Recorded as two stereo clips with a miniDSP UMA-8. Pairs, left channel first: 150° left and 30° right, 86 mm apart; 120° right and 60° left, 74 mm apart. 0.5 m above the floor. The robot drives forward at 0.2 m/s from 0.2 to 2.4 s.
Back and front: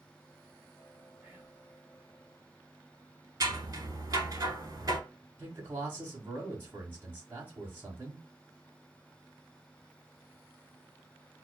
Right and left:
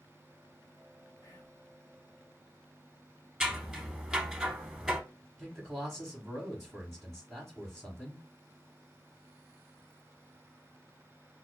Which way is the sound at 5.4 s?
30° right.